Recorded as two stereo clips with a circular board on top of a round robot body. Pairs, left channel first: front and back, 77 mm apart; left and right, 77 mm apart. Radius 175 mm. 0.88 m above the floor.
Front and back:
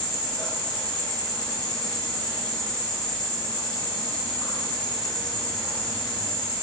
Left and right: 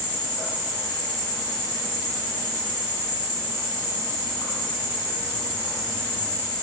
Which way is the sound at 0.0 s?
30° right.